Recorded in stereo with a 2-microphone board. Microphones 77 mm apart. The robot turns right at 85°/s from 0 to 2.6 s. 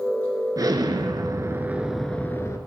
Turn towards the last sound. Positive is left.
turn(degrees=55)